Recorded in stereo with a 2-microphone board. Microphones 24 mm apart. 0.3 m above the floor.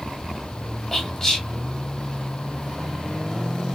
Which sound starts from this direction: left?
Whispering, at 0.9 s.